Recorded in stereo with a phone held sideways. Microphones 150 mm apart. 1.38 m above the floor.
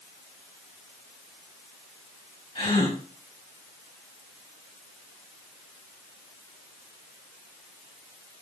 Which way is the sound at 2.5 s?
40° left (ahead or behind).